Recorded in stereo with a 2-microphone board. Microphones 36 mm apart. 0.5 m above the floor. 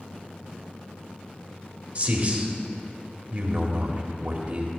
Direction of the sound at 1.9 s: 35° right (ahead or behind).